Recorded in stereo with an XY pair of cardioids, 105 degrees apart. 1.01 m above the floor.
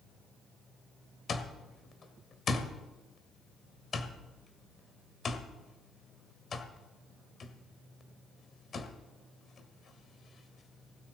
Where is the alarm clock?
45° left, 1.7 m.